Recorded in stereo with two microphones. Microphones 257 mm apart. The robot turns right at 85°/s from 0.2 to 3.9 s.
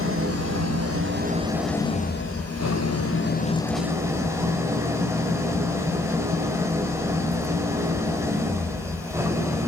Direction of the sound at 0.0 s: 125° right.